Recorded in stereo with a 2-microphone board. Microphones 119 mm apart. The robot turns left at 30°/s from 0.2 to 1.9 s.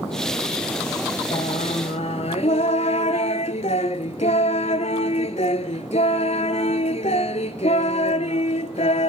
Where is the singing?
70° left (ahead or behind), 0.5 m; by 9.1 s 75° left (ahead or behind), 0.5 m.